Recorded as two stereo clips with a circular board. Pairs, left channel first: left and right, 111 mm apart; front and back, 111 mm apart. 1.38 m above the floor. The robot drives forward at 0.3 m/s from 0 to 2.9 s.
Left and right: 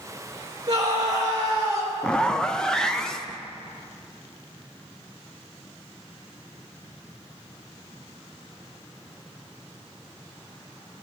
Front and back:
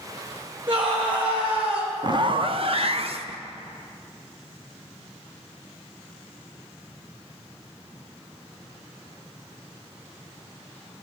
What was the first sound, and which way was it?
A scream, 145° right.